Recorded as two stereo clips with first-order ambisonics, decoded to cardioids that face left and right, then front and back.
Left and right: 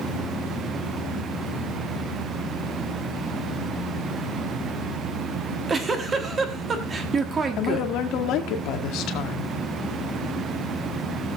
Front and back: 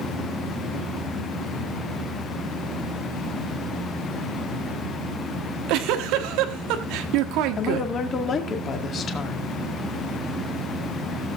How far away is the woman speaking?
About 1.9 m.